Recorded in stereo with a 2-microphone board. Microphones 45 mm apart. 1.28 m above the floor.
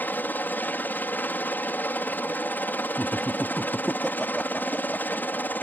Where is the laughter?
5° left (ahead or behind).